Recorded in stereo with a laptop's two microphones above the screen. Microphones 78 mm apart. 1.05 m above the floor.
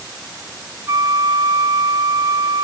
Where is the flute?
50° right (ahead or behind), 0.8 m.